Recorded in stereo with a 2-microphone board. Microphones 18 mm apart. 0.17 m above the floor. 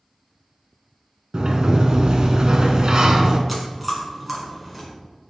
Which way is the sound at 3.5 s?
Centre (ahead or behind).